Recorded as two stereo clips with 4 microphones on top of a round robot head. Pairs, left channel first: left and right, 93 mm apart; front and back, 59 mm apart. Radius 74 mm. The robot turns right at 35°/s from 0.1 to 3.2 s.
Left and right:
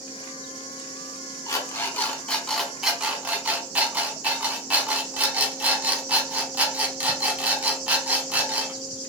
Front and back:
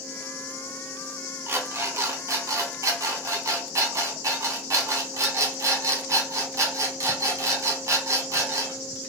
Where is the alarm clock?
135° left, 1.1 m; by 8.8 s 165° right, 1.1 m.